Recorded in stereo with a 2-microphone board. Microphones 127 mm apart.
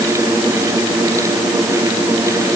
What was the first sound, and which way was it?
Only background noise.